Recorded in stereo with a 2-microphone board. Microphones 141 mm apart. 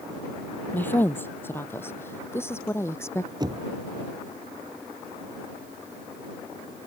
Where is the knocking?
30° right (ahead or behind).